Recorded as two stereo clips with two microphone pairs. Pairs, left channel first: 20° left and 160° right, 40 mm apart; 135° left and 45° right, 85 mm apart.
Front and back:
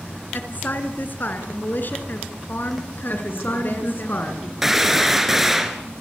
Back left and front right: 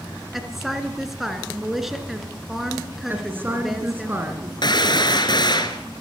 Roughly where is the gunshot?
Behind left.